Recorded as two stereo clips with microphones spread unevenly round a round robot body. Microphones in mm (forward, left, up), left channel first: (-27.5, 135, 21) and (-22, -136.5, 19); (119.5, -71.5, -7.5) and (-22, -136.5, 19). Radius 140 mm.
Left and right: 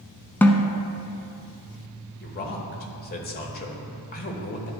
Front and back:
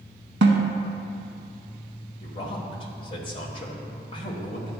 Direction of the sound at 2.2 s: 50° left.